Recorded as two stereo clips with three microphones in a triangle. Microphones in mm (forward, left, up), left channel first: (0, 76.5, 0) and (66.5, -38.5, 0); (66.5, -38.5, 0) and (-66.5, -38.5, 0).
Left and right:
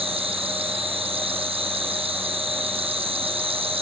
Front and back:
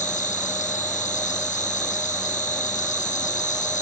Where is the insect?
15° right, 1.5 m.